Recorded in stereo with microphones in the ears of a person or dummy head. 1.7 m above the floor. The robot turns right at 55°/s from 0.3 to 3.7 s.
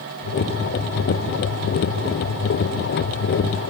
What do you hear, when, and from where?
Only background noise.